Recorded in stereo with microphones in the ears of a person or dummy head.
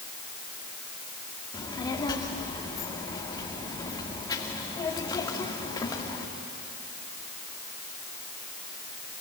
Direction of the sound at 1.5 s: 20° left (ahead or behind).